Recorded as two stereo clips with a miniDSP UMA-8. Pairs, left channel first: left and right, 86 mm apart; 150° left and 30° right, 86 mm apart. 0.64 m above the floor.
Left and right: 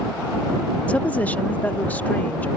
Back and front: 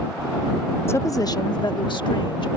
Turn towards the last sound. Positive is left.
turn(degrees=160)